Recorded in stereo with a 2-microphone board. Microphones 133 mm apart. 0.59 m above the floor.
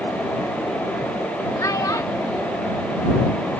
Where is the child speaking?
25° left (ahead or behind).